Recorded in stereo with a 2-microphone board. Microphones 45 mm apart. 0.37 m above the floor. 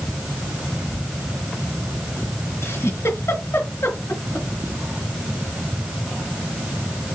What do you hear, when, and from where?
2.6 s a giggle: 70° left (ahead or behind), 4 m